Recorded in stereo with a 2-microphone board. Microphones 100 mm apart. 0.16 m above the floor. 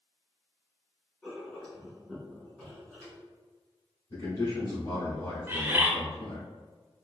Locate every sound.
1.2 s writing: 10° left (ahead or behind), 1.5 m
4.1 s a man speaking: 40° left (ahead or behind), 1.5 m
5.5 s a bird: 20° right (ahead or behind), 0.8 m